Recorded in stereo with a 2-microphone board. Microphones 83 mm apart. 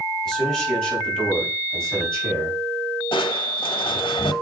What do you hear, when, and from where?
0.2 s a man speaking: 10° left (ahead or behind), 4.5 m
3.1 s crushing: 80° left, 1.0 m